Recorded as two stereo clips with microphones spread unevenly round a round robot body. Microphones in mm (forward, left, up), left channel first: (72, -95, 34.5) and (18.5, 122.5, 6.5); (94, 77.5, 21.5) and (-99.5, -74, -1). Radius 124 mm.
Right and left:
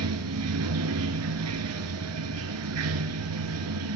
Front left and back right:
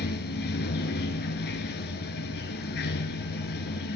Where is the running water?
90° left, 1.0 m.